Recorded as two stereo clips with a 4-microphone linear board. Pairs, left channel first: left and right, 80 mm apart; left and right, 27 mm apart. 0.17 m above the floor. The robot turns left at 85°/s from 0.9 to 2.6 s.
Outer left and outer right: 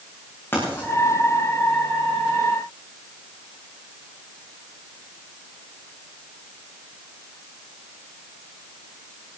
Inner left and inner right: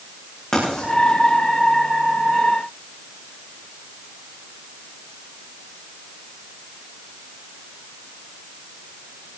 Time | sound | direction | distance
0.5 | writing | 30° left (ahead or behind) | 8 m